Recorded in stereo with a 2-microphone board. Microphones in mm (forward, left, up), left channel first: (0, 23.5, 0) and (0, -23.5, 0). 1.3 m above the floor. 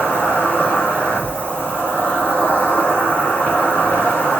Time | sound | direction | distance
0.0 | an insect | 50° left (ahead or behind) | 2.5 m